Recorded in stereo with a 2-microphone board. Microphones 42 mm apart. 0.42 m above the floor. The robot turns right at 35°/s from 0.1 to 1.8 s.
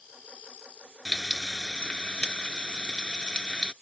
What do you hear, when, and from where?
1.1 s frying: 5° right (ahead or behind); by 3.7 s 20° left (ahead or behind)